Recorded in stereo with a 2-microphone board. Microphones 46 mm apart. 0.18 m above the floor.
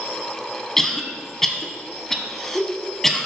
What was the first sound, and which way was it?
A cough, 10° left (ahead or behind).